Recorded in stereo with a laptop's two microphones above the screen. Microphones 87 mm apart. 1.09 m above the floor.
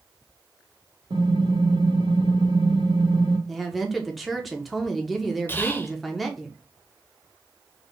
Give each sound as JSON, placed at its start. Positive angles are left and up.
{"t": 1.1, "sound": "typing on a keyboard", "side_deg": -75, "distance_m": 1.5}
{"t": 3.5, "sound": "a woman speaking", "side_deg": 0, "distance_m": 1.0}
{"t": 5.5, "sound": "whispering", "side_deg": 25, "distance_m": 0.7}